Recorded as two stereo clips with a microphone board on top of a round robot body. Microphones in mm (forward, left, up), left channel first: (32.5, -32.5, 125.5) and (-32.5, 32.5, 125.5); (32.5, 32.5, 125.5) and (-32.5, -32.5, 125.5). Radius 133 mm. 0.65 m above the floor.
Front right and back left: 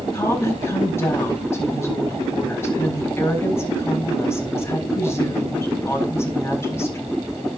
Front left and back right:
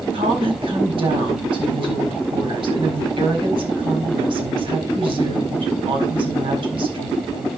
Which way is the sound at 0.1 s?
110° right.